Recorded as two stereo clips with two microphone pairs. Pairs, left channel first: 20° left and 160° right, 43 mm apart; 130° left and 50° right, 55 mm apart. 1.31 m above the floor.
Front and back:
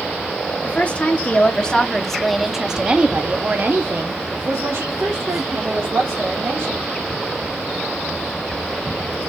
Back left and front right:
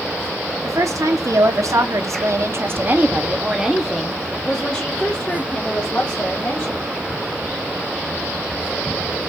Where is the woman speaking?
35° right, 1.4 m; by 6.9 s 170° right, 2 m.